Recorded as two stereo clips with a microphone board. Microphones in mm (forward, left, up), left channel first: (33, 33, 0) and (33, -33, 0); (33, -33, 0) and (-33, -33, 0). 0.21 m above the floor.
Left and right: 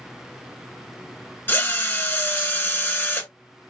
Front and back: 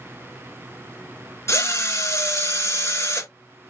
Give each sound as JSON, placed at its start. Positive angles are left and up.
{"t": 1.5, "sound": "a drill", "azimuth_deg": 35, "distance_m": 1.2}